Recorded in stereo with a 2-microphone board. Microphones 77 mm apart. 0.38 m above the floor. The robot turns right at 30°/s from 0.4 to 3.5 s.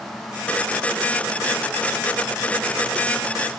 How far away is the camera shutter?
No camera shutter in this recording.